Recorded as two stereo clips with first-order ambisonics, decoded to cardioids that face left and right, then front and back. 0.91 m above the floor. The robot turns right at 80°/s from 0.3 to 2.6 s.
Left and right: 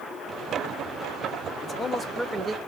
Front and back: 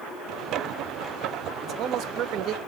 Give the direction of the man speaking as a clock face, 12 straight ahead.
7 o'clock.